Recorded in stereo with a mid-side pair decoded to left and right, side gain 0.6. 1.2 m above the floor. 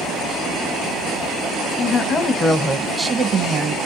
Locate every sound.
1.8 s a woman speaking: 45° left, 1.1 m; by 3.8 s 40° right, 1.0 m